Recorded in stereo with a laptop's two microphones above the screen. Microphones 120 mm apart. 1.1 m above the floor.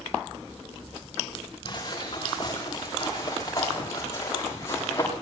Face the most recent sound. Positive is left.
turn(degrees=25)  # may be behind; listen again after turning